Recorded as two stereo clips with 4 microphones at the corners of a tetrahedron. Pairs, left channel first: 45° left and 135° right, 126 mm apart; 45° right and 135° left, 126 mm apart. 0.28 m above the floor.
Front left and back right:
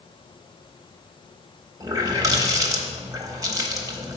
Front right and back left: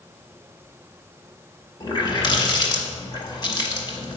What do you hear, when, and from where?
1.8 s a running tap: 80° right, 1.1 m